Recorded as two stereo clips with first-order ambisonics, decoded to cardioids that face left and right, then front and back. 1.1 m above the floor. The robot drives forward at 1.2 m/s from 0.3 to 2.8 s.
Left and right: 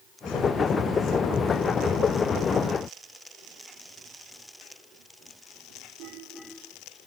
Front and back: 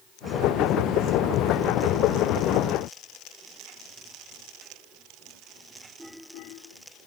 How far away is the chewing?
I don't hear chewing.